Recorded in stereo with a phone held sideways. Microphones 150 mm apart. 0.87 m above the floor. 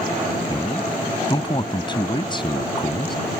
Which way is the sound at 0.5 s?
30° left (ahead or behind).